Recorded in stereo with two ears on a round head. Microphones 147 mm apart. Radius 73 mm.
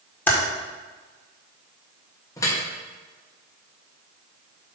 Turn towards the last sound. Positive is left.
turn(degrees=20)  # may be behind; listen again after turning